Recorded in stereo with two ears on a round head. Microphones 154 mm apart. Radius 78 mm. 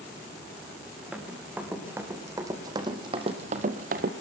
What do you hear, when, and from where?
1.1 s running footsteps: 5° right (ahead or behind), 4.5 m; by 4.1 s 55° right (ahead or behind), 1.9 m